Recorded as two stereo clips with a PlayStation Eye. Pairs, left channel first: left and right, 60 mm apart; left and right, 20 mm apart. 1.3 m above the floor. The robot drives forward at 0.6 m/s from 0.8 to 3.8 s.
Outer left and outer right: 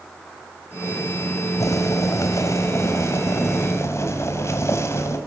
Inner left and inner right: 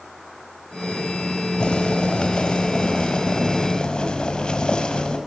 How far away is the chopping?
No chopping in this recording.